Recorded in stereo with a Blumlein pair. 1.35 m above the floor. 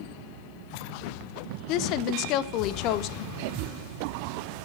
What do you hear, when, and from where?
1.7 s a woman speaking: 40° left, 0.8 m